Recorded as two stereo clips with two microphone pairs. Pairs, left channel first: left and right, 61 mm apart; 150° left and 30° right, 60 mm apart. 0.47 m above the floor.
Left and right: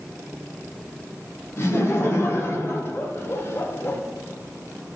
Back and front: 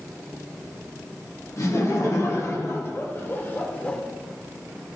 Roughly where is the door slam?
No door slam in this recording.